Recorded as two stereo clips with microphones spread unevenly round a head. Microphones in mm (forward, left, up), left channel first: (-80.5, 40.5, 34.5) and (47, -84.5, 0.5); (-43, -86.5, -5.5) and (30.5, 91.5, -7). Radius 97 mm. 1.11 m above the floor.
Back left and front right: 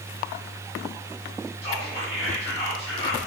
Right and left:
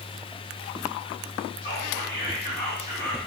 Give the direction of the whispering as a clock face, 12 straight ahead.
5 o'clock.